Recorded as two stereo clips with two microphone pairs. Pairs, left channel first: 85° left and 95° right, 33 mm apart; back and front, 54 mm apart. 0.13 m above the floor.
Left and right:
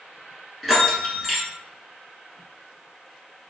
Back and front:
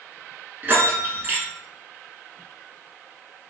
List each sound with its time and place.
0.6 s a bell: 10° right, 1.3 m